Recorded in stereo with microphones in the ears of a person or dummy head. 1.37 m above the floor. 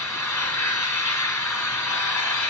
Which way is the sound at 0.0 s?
10° left (ahead or behind).